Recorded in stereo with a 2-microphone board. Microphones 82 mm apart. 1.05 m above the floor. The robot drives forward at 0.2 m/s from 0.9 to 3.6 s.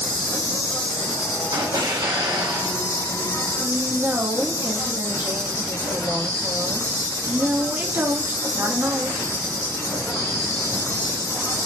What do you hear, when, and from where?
0.0 s an insect: 60° left (ahead or behind), 1.4 m; by 11.7 s 45° left (ahead or behind), 1.6 m
1.5 s an explosion: 65° right (ahead or behind), 0.9 m; by 2.8 s 70° right (ahead or behind), 0.8 m
3.6 s a woman speaking: 30° right (ahead or behind), 1.2 m